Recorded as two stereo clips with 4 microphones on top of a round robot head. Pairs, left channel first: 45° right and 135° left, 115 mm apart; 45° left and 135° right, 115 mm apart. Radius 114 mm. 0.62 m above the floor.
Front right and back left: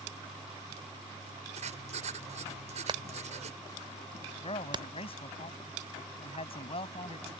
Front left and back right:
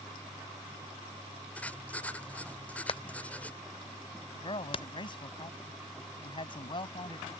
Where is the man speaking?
5° right.